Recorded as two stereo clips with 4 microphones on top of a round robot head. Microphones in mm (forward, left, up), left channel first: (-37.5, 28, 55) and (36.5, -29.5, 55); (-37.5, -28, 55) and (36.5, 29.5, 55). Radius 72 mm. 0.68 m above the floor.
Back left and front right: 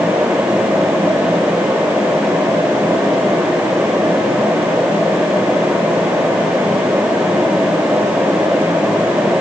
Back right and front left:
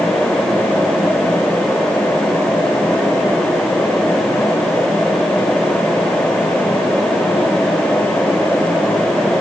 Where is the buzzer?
I don't hear a buzzer.